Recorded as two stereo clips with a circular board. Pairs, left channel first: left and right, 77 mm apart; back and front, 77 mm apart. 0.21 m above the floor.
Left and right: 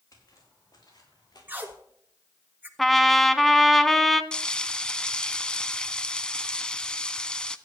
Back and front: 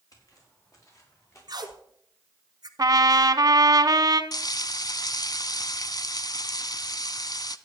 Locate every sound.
0.1 s footsteps: 135° left, 5.5 m; by 1.7 s 125° left, 6 m
1.5 s tape being pulled: 25° right, 1.4 m
2.8 s a trumpet: straight ahead, 0.8 m
4.3 s frying: 165° left, 0.6 m